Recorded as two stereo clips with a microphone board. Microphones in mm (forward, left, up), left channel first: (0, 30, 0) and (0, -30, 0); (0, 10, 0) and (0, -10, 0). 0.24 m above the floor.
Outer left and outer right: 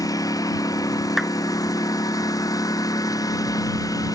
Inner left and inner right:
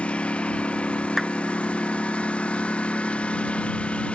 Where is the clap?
5° right (ahead or behind).